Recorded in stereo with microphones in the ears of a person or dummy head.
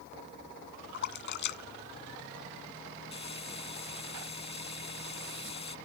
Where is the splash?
60° left (ahead or behind).